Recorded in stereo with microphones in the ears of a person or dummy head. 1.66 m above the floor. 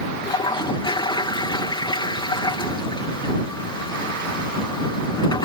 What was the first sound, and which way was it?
A toilet flushing, 25° left (ahead or behind).